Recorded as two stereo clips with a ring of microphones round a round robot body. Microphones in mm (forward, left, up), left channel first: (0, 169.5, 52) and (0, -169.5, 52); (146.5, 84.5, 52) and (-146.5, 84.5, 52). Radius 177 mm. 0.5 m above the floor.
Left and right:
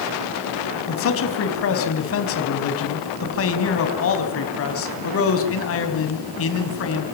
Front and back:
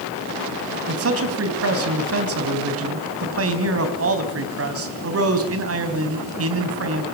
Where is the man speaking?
140° left, 3.5 m.